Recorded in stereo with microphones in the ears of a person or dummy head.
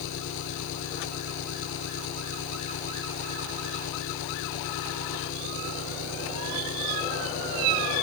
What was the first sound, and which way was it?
An engine running, 70° left (ahead or behind).